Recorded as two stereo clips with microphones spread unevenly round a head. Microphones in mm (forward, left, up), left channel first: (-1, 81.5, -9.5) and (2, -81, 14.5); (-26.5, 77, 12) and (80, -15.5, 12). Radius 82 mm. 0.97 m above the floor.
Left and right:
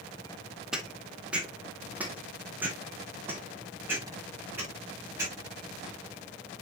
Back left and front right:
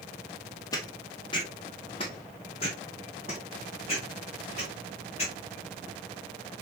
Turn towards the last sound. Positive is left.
turn(degrees=-165)